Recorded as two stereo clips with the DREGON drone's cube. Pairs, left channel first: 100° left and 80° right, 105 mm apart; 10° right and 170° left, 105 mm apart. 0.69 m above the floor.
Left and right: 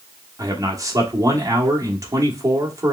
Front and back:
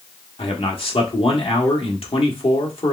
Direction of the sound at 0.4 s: 25° right.